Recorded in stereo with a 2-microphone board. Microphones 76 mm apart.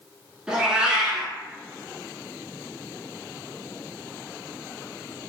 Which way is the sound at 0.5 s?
10° right (ahead or behind).